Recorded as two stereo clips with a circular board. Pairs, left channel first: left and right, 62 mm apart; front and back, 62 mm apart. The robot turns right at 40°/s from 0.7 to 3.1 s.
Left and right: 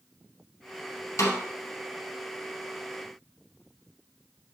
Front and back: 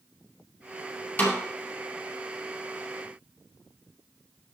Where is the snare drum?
55° left, 2.5 m; by 1.4 s 65° left, 2.5 m.